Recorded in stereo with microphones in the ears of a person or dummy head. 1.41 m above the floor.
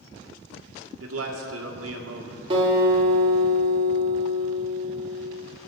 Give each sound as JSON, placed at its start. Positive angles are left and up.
{"t": 1.0, "sound": "a man speaking", "side_deg": -80, "distance_m": 1.7}
{"t": 2.5, "sound": "a guitar", "side_deg": -35, "distance_m": 2.5}